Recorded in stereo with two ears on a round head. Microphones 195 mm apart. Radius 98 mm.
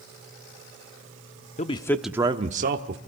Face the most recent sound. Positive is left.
turn(degrees=-50)  # may be behind; listen again after turning